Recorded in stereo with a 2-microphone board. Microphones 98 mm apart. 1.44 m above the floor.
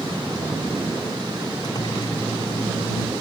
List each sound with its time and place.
1.6 s a microwave: 40° left (ahead or behind)